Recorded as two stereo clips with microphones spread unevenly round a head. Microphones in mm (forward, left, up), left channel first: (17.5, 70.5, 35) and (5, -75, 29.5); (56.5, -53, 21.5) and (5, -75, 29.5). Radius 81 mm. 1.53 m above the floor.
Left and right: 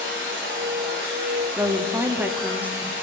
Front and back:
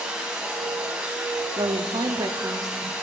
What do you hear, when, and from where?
0.0 s a machine running: 85° right, 2.5 m
1.6 s a woman speaking: 175° right, 0.5 m